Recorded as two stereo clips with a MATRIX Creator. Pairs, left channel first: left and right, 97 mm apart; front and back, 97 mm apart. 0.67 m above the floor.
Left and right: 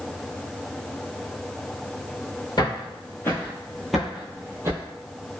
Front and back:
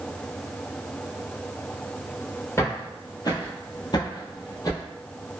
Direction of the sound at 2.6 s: 55° left.